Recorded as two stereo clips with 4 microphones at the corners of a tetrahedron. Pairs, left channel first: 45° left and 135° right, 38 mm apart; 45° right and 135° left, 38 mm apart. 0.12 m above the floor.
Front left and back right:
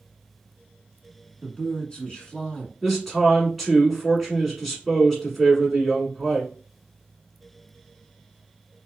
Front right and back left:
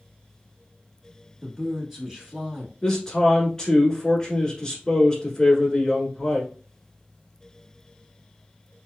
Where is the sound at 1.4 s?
70° left, 1.2 m.